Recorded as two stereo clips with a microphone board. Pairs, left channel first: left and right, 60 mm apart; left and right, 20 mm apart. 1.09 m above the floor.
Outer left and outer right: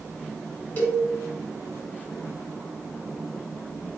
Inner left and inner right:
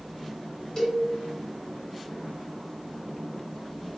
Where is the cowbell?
25° left (ahead or behind), 1.0 m.